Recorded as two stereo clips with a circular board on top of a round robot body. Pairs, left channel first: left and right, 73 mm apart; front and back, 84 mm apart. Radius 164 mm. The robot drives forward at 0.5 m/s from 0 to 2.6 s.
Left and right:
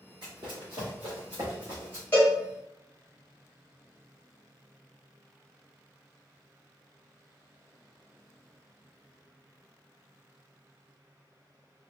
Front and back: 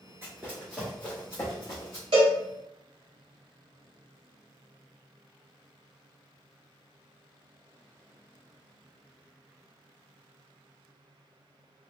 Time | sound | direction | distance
0.2 | running footsteps | 120° right | 0.7 m
2.1 | a cowbell | 155° left | 0.6 m